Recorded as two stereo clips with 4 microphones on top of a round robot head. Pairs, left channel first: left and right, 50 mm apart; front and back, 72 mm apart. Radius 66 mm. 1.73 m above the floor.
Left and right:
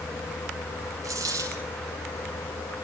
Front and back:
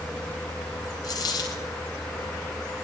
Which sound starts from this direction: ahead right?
A dropped coin, at 1.0 s.